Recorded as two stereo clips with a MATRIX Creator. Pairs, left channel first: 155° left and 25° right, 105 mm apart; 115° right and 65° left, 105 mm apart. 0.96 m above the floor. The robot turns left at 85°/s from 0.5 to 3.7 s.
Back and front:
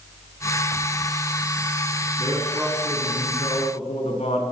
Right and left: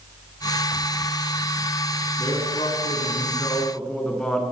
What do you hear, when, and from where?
2.2 s a man speaking: 65° right, 8.5 m; by 4.4 s 165° left, 8.5 m